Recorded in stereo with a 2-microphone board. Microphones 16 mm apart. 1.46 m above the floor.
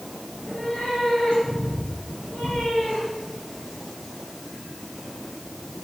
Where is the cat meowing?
70° left (ahead or behind), 4.5 m.